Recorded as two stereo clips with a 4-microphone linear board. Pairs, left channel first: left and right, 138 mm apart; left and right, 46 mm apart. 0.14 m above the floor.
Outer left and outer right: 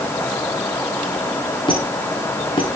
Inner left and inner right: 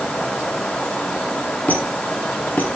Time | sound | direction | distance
1.7 | a squeak | 35° left (ahead or behind) | 5 m